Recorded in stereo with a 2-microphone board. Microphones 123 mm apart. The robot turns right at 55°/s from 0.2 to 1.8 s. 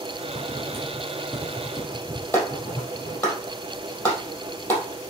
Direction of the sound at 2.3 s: 20° left (ahead or behind).